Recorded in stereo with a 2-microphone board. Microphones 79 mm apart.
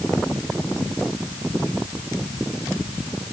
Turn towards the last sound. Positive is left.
No sound to turn to.